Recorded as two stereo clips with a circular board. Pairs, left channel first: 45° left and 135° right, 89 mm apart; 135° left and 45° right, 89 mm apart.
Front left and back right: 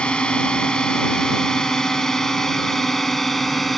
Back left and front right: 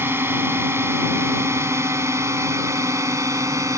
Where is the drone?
20° right; by 3.8 s 45° right.